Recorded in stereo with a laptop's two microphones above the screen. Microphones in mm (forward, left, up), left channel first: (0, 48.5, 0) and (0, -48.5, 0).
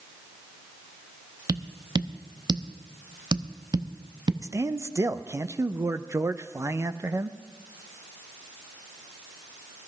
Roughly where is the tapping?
Right.